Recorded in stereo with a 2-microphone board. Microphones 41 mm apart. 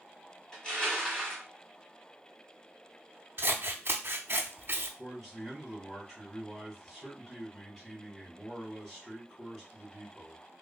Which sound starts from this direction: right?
Scissors, at 3.4 s.